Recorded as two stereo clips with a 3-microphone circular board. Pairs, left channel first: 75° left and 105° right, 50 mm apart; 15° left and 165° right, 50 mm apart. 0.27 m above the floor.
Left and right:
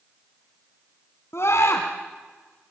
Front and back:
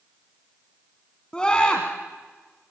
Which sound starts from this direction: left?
A scream, at 1.3 s.